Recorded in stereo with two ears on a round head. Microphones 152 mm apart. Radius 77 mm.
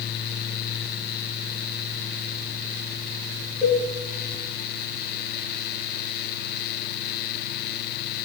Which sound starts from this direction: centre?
A cowbell, at 3.6 s.